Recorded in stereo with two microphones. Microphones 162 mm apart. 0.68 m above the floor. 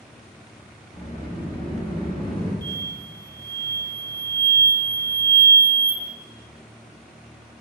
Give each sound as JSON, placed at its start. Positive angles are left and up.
{"t": 0.9, "sound": "a sliding door", "side_deg": 30, "distance_m": 1.1}
{"t": 2.6, "sound": "an explosion", "side_deg": 10, "distance_m": 0.5}